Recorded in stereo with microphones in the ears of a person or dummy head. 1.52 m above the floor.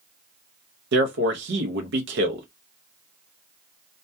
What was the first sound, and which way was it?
A man speaking, 70° right (ahead or behind).